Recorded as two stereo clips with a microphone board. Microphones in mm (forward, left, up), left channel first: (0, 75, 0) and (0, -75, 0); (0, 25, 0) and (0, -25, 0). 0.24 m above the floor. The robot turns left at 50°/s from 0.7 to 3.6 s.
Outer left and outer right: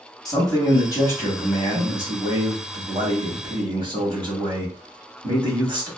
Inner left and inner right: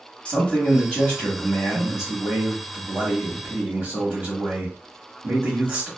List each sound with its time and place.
0.2 s a man speaking: 55° left, 1.2 m; by 5.9 s 90° right, 1.2 m